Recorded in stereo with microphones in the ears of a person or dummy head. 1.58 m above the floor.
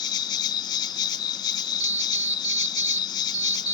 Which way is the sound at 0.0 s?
25° left (ahead or behind).